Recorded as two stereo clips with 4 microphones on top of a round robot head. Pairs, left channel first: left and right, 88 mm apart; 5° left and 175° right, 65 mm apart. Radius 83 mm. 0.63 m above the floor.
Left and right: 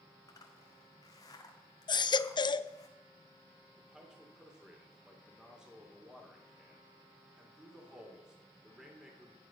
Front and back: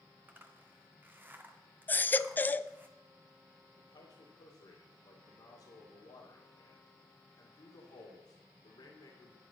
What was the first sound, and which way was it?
A zipper, 130° left.